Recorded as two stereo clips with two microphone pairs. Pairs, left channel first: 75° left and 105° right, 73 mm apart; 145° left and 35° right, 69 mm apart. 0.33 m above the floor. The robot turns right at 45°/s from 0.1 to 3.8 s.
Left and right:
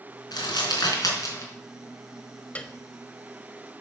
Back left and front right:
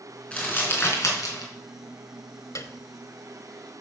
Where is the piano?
140° left, 1.0 m; by 2.8 s 150° left, 1.0 m.